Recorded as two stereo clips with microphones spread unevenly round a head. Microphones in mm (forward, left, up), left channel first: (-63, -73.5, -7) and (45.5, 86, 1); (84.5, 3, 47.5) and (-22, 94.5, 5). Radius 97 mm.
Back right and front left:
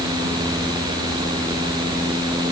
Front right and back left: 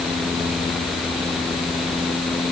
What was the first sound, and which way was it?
Only background noise.